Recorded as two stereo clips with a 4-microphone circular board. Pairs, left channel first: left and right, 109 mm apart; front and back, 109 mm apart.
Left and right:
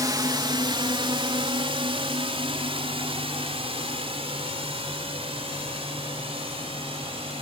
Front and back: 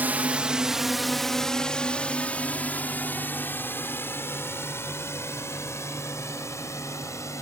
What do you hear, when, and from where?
0.0 s a drone: 115° right; by 7.4 s 60° right